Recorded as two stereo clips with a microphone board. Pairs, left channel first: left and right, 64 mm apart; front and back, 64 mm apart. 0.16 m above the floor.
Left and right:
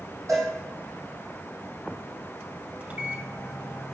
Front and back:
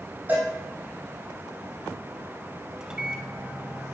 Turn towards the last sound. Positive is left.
turn(degrees=-120)